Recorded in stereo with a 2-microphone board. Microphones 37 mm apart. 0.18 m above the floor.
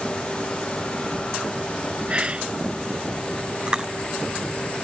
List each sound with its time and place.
2.1 s whispering: 30° right (ahead or behind)
3.7 s chewing: 20° right (ahead or behind)